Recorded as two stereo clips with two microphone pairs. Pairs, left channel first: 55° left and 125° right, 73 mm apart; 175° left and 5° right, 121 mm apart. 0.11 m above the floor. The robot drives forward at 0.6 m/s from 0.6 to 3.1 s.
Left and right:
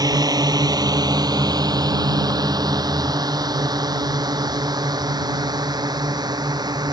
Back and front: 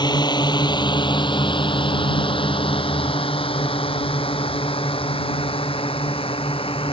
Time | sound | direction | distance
0.0 | a drone | 135° right | ?